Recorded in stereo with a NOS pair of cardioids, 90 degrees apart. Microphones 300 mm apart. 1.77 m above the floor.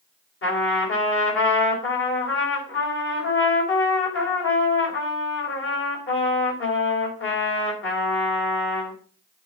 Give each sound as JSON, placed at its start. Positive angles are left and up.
{"t": 0.4, "sound": "a trumpet", "azimuth_deg": 45, "distance_m": 5.0}